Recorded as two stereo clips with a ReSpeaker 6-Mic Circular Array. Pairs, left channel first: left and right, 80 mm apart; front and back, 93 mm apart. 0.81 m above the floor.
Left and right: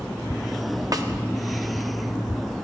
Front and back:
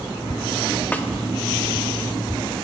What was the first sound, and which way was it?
A snare drum, 65° right.